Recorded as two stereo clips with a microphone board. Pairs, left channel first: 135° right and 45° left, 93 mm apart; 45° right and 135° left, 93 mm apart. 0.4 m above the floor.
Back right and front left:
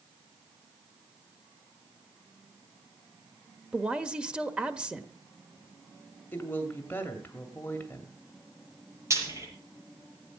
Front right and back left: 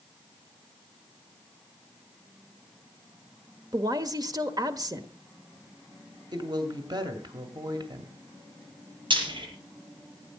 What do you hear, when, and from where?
3.7 s a woman speaking: 120° left, 1.2 m
6.3 s a woman speaking: 160° left, 2 m
9.1 s frying: 100° left, 7.5 m